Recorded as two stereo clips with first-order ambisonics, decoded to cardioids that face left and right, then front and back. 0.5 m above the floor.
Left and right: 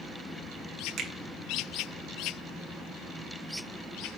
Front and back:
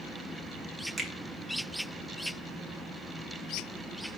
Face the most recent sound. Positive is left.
turn(degrees=-100)